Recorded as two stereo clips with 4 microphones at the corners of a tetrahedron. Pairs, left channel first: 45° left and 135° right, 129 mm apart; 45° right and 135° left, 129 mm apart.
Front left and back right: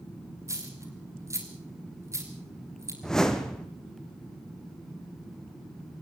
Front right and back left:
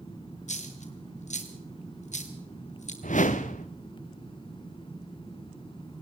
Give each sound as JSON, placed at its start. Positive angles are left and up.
{"t": 0.5, "sound": "a dropped coin", "azimuth_deg": -65, "distance_m": 3.0}
{"t": 3.0, "sound": "a whoosh", "azimuth_deg": -40, "distance_m": 1.6}